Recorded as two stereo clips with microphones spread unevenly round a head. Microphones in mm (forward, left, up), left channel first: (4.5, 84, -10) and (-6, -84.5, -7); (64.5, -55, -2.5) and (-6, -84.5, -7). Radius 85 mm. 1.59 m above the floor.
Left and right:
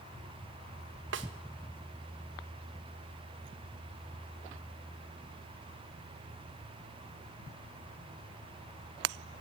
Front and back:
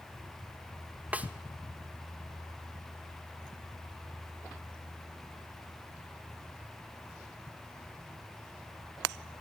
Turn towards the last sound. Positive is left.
turn(degrees=-85)